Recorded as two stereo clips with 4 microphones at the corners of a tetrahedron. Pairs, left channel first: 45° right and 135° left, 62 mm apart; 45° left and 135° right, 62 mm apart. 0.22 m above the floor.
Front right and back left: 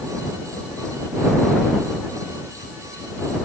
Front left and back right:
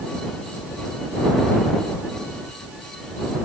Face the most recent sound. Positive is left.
No sound to turn to.